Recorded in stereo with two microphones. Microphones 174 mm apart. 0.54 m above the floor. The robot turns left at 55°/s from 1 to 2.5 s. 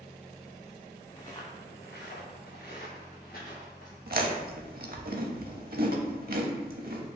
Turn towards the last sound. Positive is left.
turn(degrees=-60)  # may be behind; listen again after turning